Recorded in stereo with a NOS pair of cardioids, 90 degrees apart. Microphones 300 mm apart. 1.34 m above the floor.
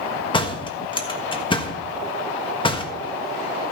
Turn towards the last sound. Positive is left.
turn(degrees=15)